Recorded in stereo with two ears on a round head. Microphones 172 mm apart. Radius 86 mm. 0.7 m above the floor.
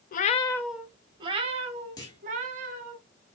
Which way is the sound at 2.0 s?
20° left (ahead or behind).